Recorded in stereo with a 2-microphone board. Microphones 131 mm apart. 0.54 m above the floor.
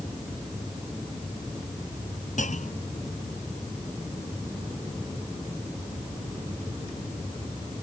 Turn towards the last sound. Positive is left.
turn(degrees=75)  # may be behind; listen again after turning